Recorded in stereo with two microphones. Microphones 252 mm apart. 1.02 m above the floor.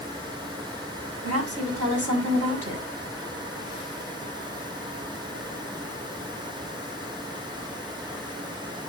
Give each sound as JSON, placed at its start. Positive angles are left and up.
{"t": 1.2, "sound": "a woman speaking", "side_deg": -65, "distance_m": 7.0}